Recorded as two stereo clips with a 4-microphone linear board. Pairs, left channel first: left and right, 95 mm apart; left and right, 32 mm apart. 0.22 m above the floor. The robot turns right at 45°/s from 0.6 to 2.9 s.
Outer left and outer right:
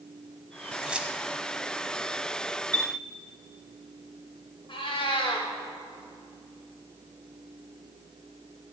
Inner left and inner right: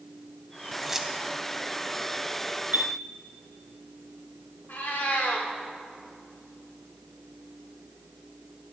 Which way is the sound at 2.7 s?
50° right (ahead or behind).